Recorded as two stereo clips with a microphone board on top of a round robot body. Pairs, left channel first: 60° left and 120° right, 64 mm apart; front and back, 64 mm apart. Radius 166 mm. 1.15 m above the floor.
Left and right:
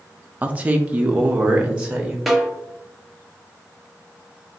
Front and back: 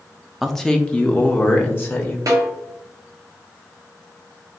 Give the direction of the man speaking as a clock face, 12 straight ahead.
3 o'clock.